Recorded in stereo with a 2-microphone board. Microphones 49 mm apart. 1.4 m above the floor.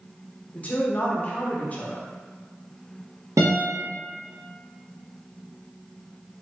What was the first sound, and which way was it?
A woman speaking, 30° left (ahead or behind).